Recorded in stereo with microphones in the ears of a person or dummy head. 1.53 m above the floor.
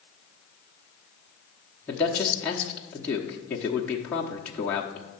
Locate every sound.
1.9 s a man speaking: 5° left (ahead or behind), 1.0 m